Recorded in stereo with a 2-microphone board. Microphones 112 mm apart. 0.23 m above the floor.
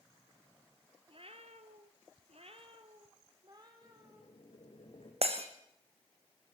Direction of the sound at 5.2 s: 65° right (ahead or behind).